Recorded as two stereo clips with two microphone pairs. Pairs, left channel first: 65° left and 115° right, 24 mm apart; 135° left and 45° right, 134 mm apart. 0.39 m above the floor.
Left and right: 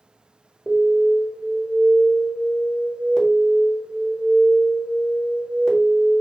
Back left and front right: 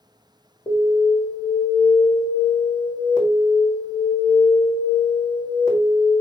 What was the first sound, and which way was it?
An alarm, 105° left.